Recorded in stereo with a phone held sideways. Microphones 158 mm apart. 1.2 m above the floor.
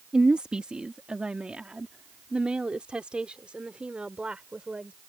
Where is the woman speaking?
5° right (ahead or behind).